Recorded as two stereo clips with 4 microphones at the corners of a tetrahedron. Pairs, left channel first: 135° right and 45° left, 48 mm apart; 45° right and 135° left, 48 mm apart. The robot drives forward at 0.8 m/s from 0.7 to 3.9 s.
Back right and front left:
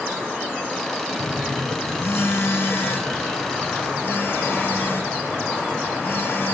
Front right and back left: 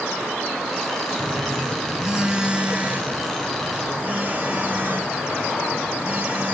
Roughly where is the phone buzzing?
Behind right.